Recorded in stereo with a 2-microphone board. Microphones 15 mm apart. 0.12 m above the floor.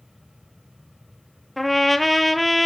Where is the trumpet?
5° left (ahead or behind), 0.6 m.